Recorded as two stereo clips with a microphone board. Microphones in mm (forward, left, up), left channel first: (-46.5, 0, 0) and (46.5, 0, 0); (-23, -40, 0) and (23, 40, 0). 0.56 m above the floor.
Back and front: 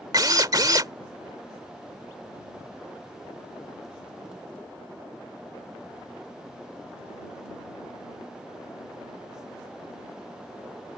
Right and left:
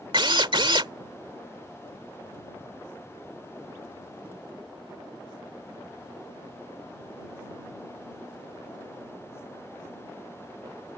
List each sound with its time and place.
0.1 s a drill: 40° left